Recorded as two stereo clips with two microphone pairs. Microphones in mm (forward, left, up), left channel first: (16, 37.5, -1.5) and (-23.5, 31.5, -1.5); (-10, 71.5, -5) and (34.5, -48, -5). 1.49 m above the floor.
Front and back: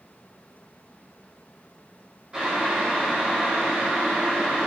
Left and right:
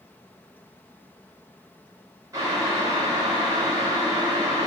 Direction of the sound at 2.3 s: 110° right.